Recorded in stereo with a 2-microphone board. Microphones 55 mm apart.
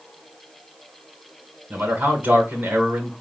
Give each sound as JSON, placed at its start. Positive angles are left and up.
{"t": 1.7, "sound": "a man speaking", "side_deg": -40, "distance_m": 1.4}